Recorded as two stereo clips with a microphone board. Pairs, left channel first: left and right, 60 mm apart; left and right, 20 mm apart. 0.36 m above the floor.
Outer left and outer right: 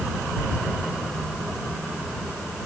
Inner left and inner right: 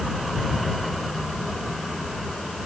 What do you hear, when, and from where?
Only background noise.